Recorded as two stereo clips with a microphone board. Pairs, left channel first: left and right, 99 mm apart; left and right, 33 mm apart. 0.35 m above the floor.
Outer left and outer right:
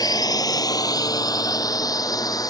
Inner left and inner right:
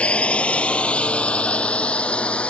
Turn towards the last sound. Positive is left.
turn(degrees=40)  # may be behind; listen again after turning